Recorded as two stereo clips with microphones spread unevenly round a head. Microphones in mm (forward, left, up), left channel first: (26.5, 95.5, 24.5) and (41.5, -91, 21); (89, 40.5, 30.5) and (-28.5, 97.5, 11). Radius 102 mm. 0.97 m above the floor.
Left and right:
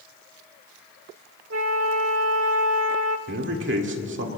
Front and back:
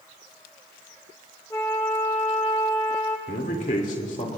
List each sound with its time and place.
1.5 s a flute: 100° right, 1.0 m
3.3 s a man speaking: 75° right, 2 m